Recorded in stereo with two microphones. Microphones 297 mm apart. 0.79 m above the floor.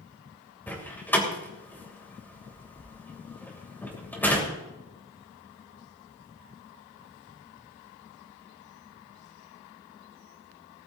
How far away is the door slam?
About 3 m.